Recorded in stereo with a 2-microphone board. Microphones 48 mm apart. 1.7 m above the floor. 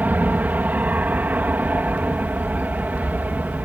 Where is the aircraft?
35° right (ahead or behind).